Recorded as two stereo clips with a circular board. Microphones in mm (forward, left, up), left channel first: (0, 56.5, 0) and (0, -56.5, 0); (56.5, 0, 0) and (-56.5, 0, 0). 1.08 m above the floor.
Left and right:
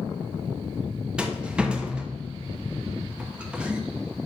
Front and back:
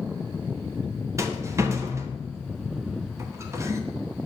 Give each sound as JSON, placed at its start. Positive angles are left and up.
{"t": 1.2, "sound": "a rattle", "azimuth_deg": -160, "distance_m": 0.7}